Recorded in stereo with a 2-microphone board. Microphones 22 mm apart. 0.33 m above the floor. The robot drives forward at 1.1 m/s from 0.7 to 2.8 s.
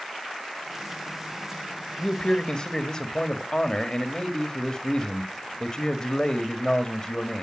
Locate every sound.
2.0 s a man speaking: 35° left (ahead or behind), 1.7 m